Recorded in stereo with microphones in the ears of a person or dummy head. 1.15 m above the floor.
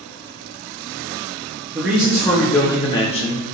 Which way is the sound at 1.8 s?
10° right (ahead or behind).